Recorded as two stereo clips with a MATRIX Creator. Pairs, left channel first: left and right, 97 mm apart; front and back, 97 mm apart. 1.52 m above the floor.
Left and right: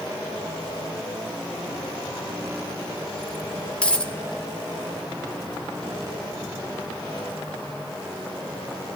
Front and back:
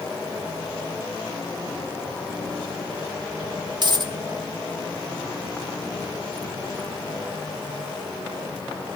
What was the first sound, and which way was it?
A dropped coin, 165° left.